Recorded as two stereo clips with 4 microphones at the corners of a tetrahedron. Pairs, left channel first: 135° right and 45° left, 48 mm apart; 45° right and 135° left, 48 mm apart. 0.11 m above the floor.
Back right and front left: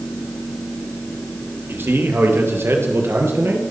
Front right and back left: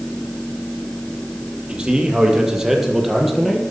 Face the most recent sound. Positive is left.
turn(degrees=45)